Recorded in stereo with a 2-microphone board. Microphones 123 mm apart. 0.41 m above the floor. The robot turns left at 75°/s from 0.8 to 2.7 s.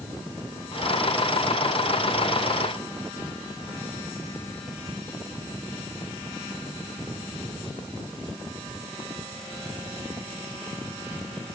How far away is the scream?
I don't hear a scream.